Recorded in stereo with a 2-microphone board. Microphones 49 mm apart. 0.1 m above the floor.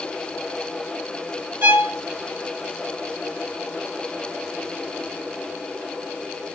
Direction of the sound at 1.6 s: 50° right (ahead or behind).